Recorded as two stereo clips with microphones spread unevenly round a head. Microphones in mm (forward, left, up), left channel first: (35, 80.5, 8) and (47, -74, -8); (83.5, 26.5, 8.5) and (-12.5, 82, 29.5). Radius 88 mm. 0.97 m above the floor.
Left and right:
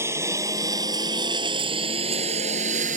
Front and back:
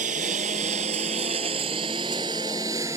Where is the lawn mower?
165° right; by 3.0 s 140° right.